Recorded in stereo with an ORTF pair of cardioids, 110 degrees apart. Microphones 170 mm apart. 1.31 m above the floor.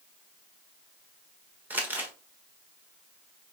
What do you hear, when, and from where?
1.7 s crumpling: 10° right, 1.1 m